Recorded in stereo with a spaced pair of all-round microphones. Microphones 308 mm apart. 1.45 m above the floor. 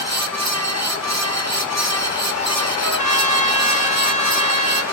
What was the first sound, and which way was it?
A fan, 60° right (ahead or behind).